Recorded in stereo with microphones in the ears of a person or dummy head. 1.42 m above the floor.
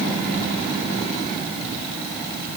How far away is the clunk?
No clunk in this recording.